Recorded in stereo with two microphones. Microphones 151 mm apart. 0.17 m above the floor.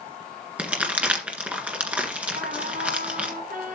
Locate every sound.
0.6 s crumpling: 10° right (ahead or behind), 1.8 m
2.4 s a trumpet: 70° right (ahead or behind), 3 m